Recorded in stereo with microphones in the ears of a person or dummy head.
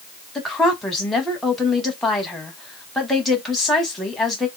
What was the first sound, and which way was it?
A woman speaking, 5° left (ahead or behind).